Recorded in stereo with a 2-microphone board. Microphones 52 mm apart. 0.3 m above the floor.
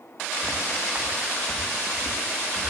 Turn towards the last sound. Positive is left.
turn(degrees=-15)  # may be behind; listen again after turning